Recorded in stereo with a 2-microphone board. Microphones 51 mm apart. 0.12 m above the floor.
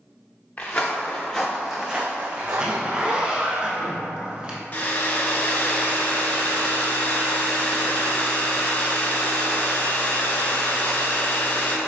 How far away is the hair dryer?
About 0.5 m.